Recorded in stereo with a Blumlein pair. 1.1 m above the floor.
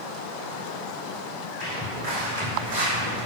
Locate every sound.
1.6 s footsteps: 40° right, 3.5 m; by 3.2 s 60° right, 3.5 m